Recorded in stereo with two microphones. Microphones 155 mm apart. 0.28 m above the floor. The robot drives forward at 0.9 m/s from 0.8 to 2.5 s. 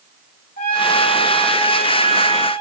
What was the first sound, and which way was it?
A trumpet, 70° left (ahead or behind).